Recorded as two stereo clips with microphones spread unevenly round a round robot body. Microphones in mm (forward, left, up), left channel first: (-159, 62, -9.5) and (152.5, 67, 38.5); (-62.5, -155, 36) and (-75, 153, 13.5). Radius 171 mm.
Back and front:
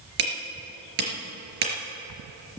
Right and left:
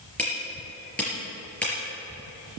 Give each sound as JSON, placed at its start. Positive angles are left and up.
{"t": 0.2, "sound": "hammering", "azimuth_deg": 0, "distance_m": 4.0}